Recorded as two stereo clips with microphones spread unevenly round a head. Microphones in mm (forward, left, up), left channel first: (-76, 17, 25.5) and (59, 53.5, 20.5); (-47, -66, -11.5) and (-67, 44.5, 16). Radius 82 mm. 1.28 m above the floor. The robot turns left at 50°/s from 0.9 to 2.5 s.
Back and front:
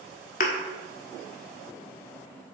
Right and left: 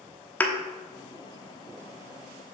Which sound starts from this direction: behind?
A thud, at 0.4 s.